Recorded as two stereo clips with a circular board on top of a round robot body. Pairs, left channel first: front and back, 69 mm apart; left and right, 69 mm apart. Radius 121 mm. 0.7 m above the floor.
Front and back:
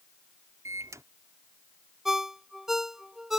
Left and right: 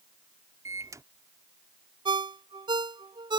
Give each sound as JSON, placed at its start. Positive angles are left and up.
{"t": 0.7, "sound": "a microwave", "azimuth_deg": -135}
{"t": 2.0, "sound": "a ringtone", "azimuth_deg": -95}